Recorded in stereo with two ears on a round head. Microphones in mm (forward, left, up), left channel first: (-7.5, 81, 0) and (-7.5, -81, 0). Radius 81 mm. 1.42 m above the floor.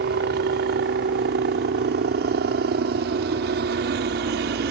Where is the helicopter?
65° right (ahead or behind).